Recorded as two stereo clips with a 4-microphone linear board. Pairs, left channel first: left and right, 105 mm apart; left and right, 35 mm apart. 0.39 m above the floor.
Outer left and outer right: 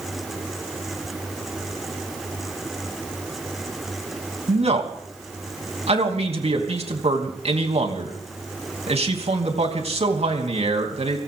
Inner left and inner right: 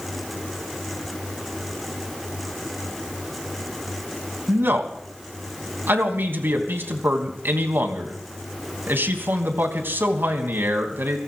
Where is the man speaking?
65° right (ahead or behind), 3.5 m.